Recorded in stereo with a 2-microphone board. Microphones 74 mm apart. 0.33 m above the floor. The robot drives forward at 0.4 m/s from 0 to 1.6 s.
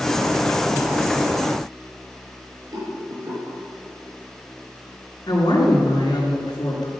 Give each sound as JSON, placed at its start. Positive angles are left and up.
{"t": 2.7, "sound": "a rattle", "side_deg": -60, "distance_m": 6.0}
{"t": 5.3, "sound": "a woman speaking", "side_deg": 70, "distance_m": 5.0}